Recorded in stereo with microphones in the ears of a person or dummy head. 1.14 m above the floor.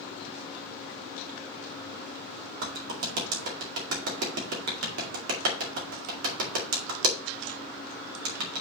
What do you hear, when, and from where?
2.6 s a clap: 70° right (ahead or behind), 2 m